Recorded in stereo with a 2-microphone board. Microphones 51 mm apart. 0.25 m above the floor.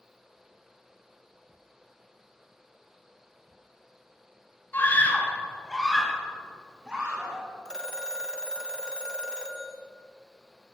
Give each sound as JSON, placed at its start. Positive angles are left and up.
{"t": 4.7, "sound": "a scream", "side_deg": 40, "distance_m": 1.9}
{"t": 7.7, "sound": "a phone ringing", "side_deg": 15, "distance_m": 1.1}